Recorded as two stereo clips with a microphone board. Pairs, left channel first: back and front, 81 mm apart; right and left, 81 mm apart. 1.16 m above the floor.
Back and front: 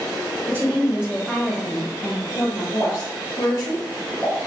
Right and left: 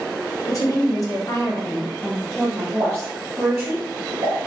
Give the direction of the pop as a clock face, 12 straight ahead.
10 o'clock.